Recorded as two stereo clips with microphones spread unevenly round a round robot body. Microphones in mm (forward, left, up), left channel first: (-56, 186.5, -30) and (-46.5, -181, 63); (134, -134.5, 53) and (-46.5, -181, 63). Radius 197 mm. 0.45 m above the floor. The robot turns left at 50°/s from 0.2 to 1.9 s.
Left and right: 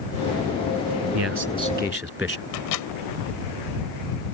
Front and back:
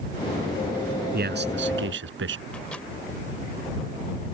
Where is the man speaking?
135° right; by 2.5 s 175° right.